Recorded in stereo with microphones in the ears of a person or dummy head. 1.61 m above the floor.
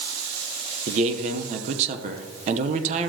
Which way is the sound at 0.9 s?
30° right (ahead or behind).